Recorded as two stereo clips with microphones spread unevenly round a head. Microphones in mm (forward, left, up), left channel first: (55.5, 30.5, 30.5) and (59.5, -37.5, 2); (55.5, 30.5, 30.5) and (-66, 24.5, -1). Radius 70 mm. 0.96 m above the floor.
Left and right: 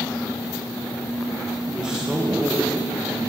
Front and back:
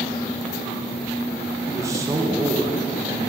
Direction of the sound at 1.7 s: 140° right.